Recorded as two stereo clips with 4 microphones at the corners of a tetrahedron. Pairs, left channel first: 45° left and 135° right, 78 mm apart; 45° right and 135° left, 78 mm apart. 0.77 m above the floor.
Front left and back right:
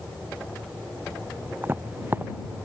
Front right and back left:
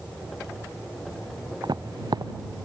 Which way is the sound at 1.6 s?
160° left.